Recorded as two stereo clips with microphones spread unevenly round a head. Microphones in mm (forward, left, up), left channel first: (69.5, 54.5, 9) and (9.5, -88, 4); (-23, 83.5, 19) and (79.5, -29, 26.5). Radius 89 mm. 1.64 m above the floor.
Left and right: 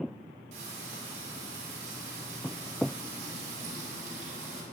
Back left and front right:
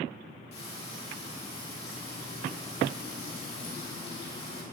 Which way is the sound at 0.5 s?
170° right.